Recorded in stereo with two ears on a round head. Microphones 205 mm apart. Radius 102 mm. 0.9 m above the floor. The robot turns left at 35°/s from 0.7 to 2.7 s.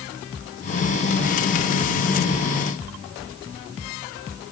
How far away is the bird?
No bird in this recording.